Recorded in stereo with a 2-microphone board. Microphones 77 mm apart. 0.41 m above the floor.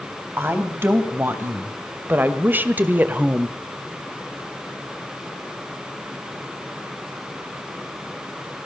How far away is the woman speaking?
About 2.5 m.